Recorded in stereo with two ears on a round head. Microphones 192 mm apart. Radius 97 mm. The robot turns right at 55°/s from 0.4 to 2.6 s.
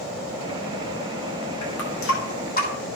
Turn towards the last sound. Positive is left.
turn(degrees=40)  # may be behind; listen again after turning